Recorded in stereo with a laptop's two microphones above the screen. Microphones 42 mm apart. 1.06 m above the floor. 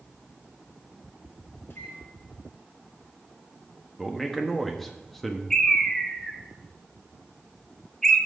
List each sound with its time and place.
1.7 s a microwave: 90° left, 2.5 m
4.0 s a man speaking: centre (ahead or behind), 1.2 m
5.5 s a bird: 10° left (ahead or behind), 1.4 m